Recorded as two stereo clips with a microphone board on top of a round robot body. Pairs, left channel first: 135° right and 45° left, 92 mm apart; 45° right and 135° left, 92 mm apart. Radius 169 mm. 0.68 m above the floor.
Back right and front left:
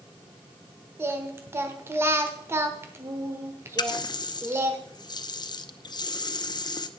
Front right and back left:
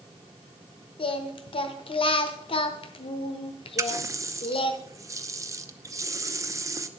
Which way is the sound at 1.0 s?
20° right.